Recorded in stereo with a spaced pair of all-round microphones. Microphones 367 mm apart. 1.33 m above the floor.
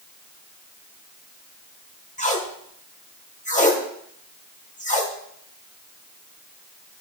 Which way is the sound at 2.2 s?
20° left (ahead or behind).